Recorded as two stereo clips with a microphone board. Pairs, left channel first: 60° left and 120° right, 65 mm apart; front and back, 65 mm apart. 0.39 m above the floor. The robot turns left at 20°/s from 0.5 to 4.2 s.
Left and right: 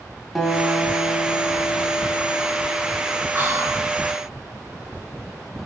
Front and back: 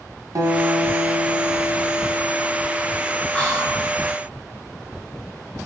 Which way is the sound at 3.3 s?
75° right.